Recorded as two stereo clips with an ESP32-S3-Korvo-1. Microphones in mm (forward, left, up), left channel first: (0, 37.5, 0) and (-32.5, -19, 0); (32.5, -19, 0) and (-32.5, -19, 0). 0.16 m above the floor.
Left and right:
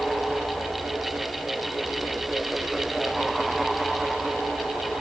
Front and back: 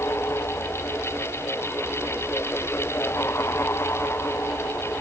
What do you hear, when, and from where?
Only background noise.